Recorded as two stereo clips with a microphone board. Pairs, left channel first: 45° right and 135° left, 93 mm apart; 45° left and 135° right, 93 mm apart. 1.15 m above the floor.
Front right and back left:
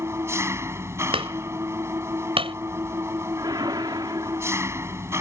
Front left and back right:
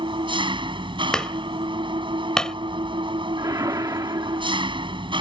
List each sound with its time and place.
0.0 s an engine running: 165° right
1.1 s hammering: 130° left
3.4 s a whoosh: 175° left